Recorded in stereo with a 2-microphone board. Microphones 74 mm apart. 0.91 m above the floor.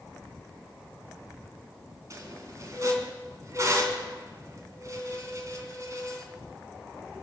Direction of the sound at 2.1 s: 45° right (ahead or behind).